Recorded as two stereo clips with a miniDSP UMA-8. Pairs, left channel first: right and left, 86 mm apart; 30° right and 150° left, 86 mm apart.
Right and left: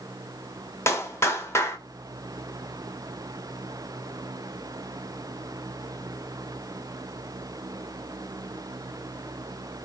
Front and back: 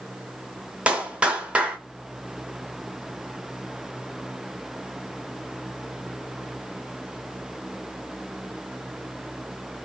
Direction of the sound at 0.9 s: 135° right.